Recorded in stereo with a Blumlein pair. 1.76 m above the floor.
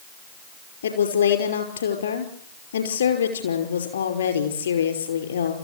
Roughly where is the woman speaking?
Left.